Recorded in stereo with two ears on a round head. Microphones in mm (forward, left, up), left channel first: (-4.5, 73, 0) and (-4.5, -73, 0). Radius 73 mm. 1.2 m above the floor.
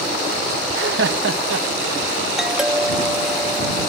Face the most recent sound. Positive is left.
turn(degrees=-5)  # may be behind; listen again after turning